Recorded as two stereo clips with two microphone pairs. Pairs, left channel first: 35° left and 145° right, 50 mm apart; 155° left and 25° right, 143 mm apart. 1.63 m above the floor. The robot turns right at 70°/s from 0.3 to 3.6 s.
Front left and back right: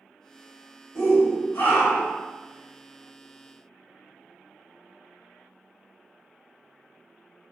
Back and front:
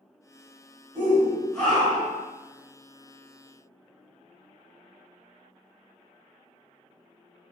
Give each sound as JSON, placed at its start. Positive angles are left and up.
{"t": 0.9, "sound": "a shout", "azimuth_deg": 30, "distance_m": 1.5}